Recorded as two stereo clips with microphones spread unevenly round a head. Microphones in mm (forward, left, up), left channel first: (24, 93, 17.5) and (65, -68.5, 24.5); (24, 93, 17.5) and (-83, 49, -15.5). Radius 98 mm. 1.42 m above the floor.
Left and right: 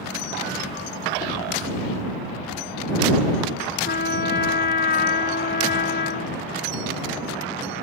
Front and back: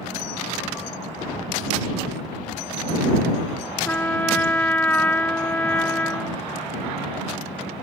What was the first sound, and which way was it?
A trumpet, 85° left.